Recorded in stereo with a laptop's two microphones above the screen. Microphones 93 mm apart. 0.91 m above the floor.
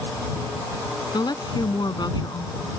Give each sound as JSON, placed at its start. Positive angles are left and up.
{"t": 1.1, "sound": "a woman speaking", "side_deg": 50}